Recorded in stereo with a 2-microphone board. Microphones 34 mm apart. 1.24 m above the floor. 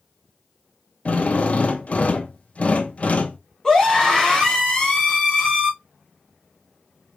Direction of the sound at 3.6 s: 20° left (ahead or behind).